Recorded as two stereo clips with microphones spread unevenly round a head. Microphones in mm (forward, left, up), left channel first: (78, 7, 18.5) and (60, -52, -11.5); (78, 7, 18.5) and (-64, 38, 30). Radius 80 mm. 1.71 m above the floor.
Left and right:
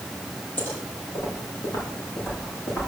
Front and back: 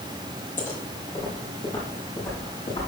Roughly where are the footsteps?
Ahead left.